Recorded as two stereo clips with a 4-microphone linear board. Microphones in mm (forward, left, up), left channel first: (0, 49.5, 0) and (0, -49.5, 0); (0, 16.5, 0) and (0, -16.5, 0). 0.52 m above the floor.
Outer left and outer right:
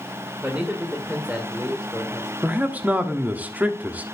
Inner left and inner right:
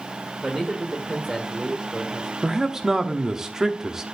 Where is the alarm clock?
I don't hear an alarm clock.